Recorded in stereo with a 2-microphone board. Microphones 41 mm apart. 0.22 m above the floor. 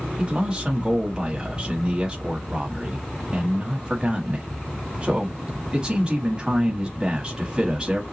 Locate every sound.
0.2 s a man speaking: 20° right (ahead or behind), 1.0 m